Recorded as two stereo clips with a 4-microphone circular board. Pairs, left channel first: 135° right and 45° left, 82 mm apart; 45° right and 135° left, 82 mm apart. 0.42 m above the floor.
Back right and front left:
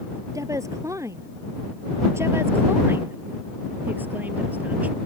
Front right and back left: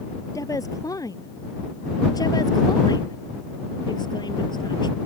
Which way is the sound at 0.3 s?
Straight ahead.